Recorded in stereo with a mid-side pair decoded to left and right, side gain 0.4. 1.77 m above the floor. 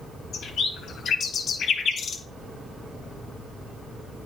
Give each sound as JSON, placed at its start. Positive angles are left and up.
{"t": 0.3, "sound": "a bird", "azimuth_deg": 65, "distance_m": 2.5}